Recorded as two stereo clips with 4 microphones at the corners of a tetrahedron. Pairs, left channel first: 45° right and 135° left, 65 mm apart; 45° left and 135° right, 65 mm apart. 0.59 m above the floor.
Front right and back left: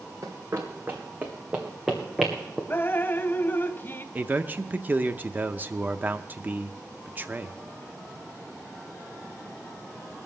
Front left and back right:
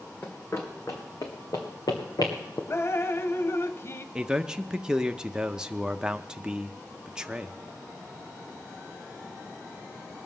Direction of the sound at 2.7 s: 5° left.